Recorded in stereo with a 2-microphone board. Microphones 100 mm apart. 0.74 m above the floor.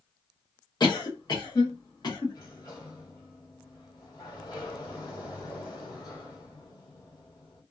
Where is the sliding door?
40° left (ahead or behind), 1.6 m.